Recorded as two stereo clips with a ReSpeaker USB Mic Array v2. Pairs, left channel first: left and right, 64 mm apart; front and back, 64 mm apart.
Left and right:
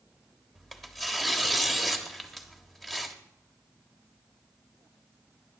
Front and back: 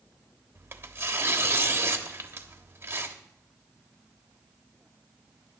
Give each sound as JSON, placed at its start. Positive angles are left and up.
{"t": 0.6, "sound": "tearing paper", "azimuth_deg": 175, "distance_m": 1.2}